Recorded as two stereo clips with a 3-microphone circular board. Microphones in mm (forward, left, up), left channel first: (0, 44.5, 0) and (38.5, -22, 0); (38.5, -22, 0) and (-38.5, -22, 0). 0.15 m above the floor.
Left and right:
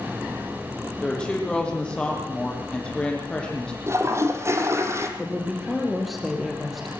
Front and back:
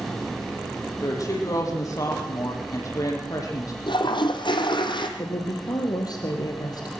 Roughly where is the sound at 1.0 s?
Ahead left.